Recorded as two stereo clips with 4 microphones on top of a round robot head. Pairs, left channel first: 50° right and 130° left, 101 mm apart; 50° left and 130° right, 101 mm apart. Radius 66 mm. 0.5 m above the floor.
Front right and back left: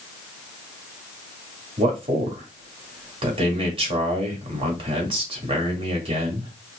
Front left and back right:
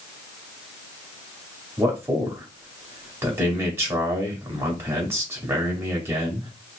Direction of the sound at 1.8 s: 160° left.